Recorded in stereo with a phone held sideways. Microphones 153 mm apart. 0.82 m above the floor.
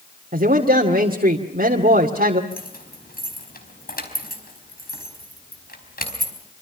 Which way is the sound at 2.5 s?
85° left.